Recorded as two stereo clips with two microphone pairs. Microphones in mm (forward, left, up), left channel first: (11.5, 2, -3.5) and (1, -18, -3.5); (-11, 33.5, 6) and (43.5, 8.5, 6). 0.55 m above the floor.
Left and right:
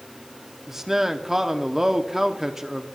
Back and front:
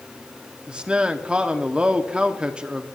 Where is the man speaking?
65° right, 1.0 m.